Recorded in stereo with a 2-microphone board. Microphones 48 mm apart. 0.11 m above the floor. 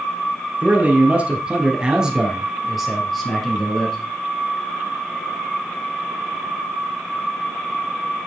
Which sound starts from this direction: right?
A man speaking, at 0.6 s.